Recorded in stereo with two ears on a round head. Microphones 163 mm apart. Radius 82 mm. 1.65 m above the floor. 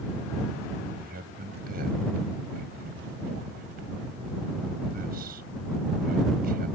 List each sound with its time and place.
1.0 s a man speaking: 55° right (ahead or behind)